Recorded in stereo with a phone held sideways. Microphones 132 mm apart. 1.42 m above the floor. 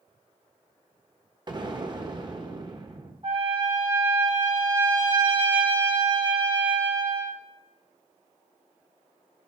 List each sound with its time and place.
1.5 s an explosion: 35° right (ahead or behind), 1.2 m
3.2 s a trumpet: 45° right (ahead or behind), 4.5 m